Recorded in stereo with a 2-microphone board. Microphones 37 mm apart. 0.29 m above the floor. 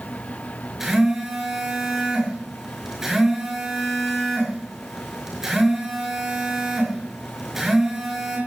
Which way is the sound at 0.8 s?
10° right (ahead or behind).